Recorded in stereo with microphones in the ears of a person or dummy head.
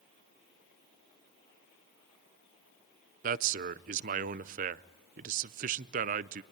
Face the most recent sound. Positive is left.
turn(degrees=-45)  # may be behind; listen again after turning